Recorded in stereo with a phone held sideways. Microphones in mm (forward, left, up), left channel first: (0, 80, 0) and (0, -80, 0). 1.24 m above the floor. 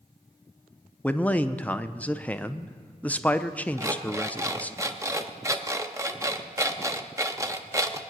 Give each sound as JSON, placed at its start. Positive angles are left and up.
{"t": 1.0, "sound": "a man speaking", "side_deg": 10, "distance_m": 0.5}
{"t": 3.8, "sound": "an alarm clock", "side_deg": -20, "distance_m": 0.8}